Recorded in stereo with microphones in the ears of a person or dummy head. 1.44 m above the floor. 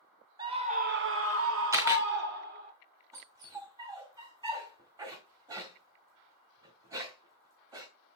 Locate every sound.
0.4 s a scream: 25° right (ahead or behind), 1.2 m; by 2.7 s 55° right (ahead or behind), 2.5 m
1.7 s a camera shutter: 15° right (ahead or behind), 1.2 m
3.1 s a dog barking: 20° right (ahead or behind), 1.5 m